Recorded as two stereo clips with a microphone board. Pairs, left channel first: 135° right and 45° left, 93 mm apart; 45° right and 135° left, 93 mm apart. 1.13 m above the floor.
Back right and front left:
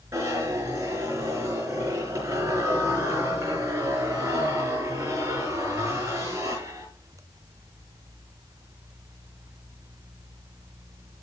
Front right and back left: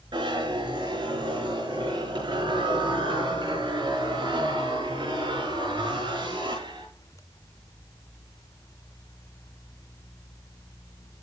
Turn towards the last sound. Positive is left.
turn(degrees=105)